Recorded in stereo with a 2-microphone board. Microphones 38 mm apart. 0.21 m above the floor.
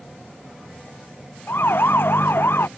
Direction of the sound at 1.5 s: 70° left (ahead or behind).